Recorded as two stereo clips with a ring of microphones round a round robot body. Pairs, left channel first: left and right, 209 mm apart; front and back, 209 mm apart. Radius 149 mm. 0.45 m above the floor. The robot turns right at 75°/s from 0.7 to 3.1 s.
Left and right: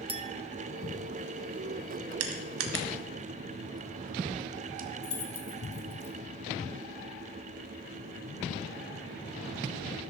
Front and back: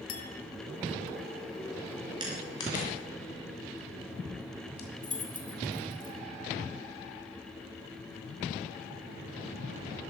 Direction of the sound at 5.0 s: 55° left.